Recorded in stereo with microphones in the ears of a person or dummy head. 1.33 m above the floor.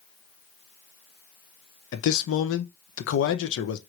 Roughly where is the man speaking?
Left.